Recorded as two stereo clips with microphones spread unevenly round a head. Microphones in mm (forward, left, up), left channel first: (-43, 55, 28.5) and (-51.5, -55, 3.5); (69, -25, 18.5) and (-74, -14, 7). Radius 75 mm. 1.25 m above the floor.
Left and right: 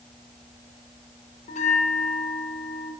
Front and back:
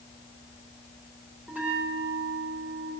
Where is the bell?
95° left, 4.5 m.